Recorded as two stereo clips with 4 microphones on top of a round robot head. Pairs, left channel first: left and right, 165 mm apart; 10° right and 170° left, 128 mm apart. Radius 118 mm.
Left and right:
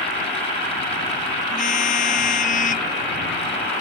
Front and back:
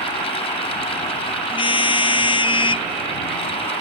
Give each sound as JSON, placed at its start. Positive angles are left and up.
{"t": 1.5, "sound": "a car horn", "azimuth_deg": 40}